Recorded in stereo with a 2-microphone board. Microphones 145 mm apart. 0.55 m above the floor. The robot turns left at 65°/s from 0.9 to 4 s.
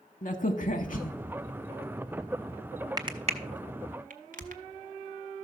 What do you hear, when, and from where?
0.2 s a crack: 65° left (ahead or behind), 0.8 m; by 4.6 s 70° right (ahead or behind), 0.8 m